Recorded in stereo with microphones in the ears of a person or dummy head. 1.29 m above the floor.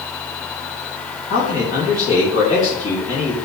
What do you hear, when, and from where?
1.3 s a man speaking: 35° left (ahead or behind), 3 m